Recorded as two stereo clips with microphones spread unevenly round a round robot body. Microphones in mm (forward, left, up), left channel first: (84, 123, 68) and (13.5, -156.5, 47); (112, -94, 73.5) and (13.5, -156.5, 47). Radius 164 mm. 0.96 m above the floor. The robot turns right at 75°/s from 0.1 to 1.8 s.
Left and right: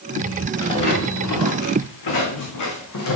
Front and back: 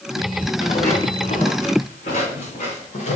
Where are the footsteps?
Straight ahead, 4.5 m; by 3.2 s 45° left, 3 m.